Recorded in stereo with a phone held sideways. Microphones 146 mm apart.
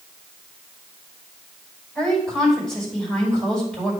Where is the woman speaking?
10° left (ahead or behind), 4.5 m.